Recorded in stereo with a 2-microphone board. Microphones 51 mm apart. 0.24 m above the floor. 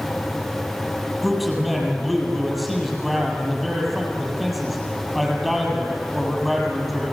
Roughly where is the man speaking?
Centre.